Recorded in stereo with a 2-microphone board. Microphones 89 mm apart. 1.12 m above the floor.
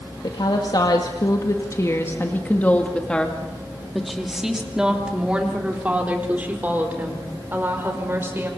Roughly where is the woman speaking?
Left.